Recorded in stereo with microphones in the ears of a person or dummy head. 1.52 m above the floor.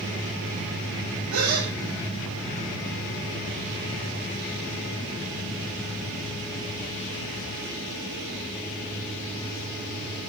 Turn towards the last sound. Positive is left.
turn(degrees=-80)